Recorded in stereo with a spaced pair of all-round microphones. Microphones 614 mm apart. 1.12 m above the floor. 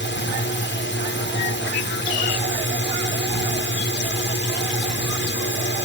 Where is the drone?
15° left (ahead or behind).